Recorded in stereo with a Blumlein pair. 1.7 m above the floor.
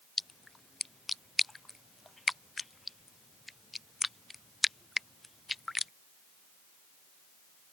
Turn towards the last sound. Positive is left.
turn(degrees=5)